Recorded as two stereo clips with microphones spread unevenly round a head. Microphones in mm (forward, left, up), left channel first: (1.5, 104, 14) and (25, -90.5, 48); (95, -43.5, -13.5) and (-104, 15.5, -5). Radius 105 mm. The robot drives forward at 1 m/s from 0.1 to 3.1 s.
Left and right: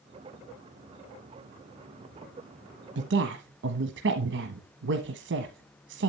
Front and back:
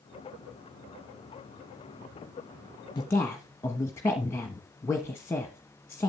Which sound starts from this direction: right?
A woman speaking, at 3.0 s.